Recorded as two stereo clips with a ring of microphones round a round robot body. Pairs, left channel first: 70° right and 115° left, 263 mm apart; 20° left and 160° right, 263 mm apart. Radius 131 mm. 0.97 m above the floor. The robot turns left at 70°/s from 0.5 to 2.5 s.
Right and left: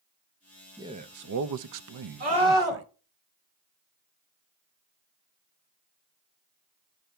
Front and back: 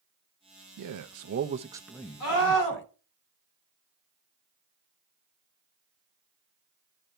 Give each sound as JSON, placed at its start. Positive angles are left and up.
{"t": 0.8, "sound": "a man speaking", "azimuth_deg": -170, "distance_m": 0.5}
{"t": 2.2, "sound": "a scream", "azimuth_deg": 55, "distance_m": 3.5}